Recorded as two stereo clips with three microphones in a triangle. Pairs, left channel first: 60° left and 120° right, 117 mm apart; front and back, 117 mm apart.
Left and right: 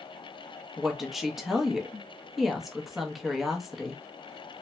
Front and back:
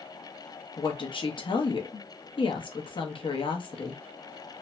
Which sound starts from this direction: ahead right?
A woman speaking, at 0.8 s.